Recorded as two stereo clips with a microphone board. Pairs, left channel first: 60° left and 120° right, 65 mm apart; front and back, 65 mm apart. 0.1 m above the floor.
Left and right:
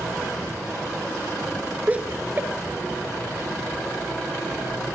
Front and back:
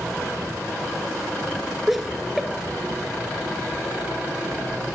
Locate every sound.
1.9 s laughter: 90° right, 1.6 m; by 5.0 s 100° right, 3 m